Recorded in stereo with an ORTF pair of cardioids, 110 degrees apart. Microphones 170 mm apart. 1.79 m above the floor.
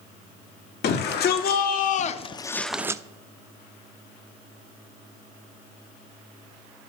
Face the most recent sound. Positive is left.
turn(degrees=-20)